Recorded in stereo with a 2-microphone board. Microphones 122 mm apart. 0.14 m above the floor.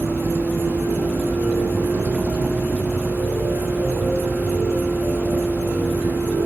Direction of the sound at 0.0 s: 10° right (ahead or behind).